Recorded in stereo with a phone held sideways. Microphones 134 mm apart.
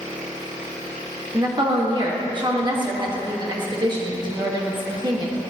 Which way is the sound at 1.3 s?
35° right (ahead or behind).